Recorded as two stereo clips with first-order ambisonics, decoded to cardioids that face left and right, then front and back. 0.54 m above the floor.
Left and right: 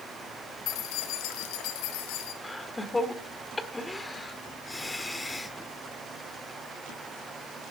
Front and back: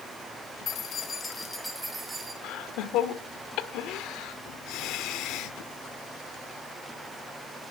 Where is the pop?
I don't hear a pop.